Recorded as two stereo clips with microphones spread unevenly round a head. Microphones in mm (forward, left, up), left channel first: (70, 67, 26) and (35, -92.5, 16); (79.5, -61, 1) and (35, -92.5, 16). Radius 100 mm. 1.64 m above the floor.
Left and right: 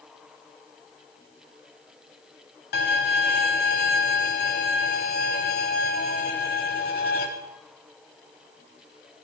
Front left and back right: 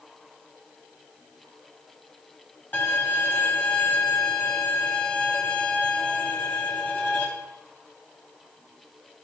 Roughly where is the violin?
Behind left.